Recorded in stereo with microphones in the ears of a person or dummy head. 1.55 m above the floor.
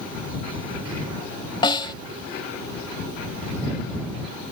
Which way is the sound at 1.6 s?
25° left (ahead or behind).